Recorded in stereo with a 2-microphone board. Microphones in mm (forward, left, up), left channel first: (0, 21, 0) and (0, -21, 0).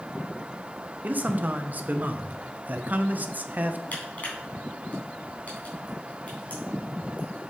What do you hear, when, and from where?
1.0 s a man speaking: 40° right (ahead or behind), 0.6 m
3.9 s crushing: 40° left (ahead or behind), 3 m